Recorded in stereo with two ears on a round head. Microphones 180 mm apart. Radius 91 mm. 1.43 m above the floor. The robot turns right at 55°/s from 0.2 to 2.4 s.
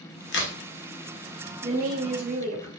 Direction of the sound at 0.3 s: 55° left (ahead or behind).